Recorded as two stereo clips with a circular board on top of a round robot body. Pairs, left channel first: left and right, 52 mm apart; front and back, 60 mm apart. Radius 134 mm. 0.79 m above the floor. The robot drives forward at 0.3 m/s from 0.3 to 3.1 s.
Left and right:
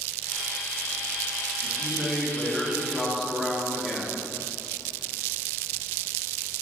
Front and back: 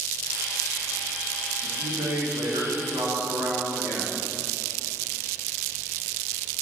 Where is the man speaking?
175° right, 2 m; by 4.2 s straight behind, 2.5 m.